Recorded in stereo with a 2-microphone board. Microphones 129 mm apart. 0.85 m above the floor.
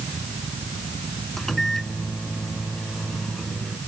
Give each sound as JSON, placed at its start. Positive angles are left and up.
{"t": 1.4, "sound": "a microwave", "side_deg": 0}